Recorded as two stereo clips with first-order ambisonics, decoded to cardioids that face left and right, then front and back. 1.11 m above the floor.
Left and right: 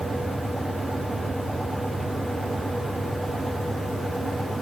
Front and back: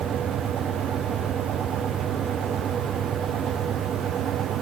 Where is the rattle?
No rattle in this recording.